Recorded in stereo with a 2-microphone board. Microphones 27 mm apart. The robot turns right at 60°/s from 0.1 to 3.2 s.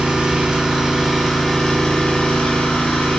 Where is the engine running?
70° right, 3.5 m; by 3.2 s 115° left, 3.5 m.